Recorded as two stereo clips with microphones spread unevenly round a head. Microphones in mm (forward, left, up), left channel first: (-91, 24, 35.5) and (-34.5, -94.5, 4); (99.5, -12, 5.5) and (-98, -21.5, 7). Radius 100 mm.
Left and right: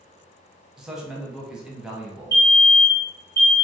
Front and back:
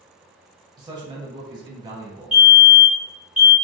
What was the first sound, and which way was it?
A man speaking, 125° right.